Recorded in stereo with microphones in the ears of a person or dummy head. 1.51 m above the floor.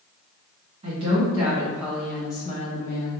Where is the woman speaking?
35° right (ahead or behind), 1.6 m; by 3.2 s 60° left (ahead or behind), 0.9 m.